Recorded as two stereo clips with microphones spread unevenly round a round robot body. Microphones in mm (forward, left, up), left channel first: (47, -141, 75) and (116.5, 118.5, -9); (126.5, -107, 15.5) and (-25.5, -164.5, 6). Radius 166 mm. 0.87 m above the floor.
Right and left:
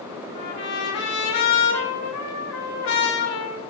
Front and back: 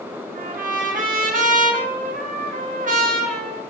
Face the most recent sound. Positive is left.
turn(degrees=-145)